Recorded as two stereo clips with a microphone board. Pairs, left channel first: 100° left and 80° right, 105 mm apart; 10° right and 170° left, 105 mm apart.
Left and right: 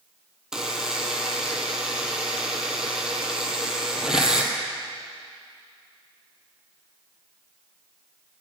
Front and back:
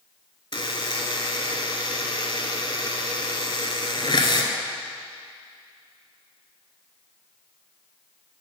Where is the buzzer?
5° left, 0.8 m.